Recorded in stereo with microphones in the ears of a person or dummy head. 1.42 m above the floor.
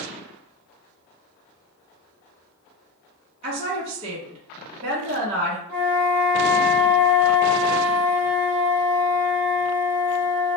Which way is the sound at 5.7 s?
55° right (ahead or behind).